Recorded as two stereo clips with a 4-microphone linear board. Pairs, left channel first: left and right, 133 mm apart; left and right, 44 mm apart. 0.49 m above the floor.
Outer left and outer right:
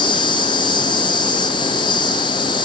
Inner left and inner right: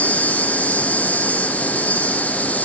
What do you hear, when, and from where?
0.0 s an insect: 40° left (ahead or behind), 2.5 m